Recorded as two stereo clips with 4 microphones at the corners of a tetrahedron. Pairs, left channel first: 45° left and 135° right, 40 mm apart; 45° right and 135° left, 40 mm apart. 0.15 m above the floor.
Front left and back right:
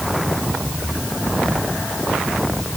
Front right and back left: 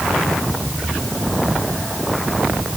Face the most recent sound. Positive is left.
No sound to turn to.